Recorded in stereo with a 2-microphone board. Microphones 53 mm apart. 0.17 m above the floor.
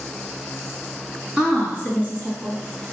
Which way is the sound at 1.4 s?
30° right (ahead or behind).